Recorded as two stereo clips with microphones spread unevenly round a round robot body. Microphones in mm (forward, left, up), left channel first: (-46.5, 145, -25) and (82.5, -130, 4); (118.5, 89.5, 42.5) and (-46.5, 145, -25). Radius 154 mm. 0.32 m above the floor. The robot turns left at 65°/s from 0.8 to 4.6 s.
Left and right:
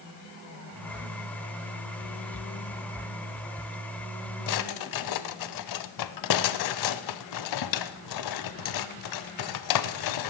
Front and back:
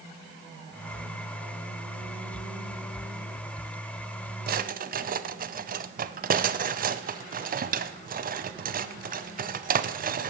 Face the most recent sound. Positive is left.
turn(degrees=135)